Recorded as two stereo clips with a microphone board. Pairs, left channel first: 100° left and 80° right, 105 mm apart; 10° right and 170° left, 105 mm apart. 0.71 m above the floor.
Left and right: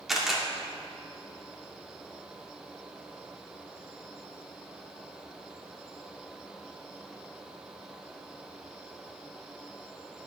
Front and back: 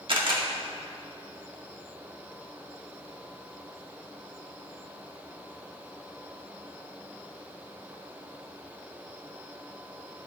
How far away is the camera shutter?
About 1.8 m.